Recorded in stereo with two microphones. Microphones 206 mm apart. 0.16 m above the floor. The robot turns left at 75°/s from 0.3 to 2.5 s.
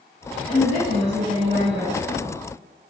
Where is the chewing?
I don't hear chewing.